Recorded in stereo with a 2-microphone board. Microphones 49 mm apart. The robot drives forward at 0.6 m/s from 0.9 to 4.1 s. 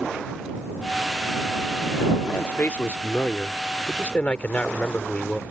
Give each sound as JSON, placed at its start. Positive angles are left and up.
{"t": 2.2, "sound": "a man speaking", "side_deg": 45}